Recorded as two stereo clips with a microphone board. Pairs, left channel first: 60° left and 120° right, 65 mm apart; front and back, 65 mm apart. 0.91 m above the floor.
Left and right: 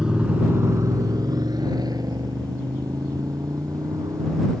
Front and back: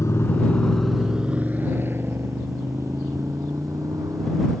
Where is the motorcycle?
40° right; by 4.6 s 150° right.